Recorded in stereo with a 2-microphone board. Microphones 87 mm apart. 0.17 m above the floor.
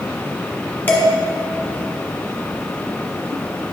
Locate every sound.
0.9 s dishes clattering: 25° left (ahead or behind), 1.1 m